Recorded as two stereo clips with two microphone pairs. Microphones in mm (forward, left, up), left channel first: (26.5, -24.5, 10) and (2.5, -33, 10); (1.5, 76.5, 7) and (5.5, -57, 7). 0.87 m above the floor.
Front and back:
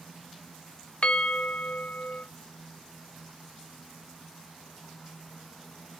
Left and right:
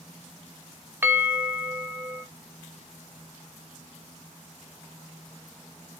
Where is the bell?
15° right, 0.5 m.